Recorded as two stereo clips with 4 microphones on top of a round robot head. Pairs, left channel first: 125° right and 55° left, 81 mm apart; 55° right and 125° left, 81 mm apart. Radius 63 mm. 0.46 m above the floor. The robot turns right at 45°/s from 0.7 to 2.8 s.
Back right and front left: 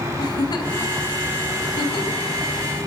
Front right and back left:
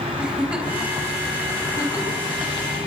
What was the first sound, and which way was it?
A giggle, 160° right.